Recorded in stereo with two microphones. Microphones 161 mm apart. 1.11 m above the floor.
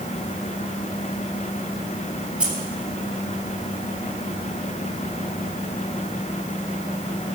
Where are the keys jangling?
5° right (ahead or behind), 3 m.